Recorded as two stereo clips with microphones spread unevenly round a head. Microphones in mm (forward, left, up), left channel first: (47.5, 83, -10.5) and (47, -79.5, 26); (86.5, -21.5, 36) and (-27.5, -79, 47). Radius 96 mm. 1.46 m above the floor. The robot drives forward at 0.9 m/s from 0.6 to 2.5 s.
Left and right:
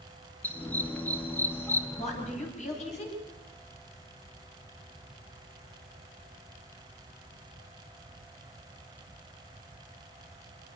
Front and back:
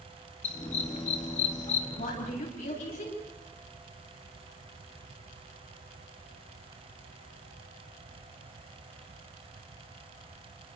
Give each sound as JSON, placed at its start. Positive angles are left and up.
{"t": 0.4, "sound": "a dog barking", "azimuth_deg": 5, "distance_m": 3.5}
{"t": 2.0, "sound": "a woman speaking", "azimuth_deg": 45, "distance_m": 10.0}